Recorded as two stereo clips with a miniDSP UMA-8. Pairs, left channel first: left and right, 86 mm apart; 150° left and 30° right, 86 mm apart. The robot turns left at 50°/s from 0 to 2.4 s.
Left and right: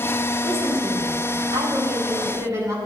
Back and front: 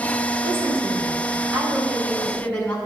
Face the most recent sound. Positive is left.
turn(degrees=-135)